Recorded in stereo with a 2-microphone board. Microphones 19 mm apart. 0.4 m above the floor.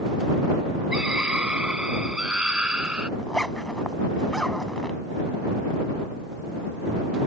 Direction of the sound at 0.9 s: 65° right (ahead or behind).